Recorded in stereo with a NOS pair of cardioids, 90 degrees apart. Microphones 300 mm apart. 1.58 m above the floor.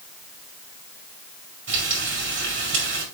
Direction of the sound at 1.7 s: 40° right.